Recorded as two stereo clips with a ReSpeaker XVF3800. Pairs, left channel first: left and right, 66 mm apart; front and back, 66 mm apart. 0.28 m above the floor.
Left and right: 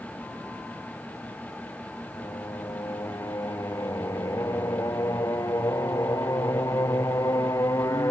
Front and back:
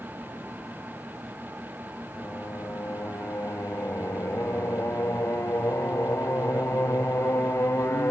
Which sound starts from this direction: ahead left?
Singing, at 2.1 s.